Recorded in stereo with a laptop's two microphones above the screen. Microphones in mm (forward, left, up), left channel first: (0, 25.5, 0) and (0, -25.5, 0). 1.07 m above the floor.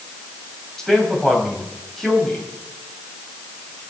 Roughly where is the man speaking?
Centre.